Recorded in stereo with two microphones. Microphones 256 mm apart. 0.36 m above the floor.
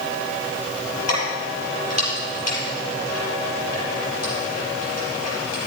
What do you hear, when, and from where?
1.1 s keys jangling: 80° left, 6 m